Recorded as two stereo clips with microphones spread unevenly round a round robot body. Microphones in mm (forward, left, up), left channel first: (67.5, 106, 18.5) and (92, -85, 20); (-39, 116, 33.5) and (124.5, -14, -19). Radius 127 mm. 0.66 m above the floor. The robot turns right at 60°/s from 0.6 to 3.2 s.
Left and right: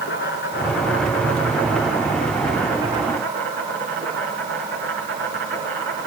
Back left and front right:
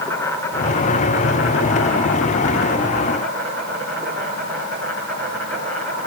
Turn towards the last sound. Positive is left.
turn(degrees=-140)